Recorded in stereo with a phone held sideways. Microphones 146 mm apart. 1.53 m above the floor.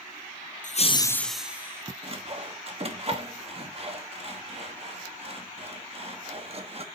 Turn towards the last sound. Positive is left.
turn(degrees=-45)  # may be behind; listen again after turning